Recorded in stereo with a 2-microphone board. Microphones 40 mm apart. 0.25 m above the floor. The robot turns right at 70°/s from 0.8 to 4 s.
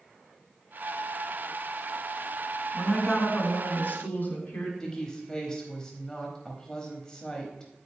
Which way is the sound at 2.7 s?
Straight ahead.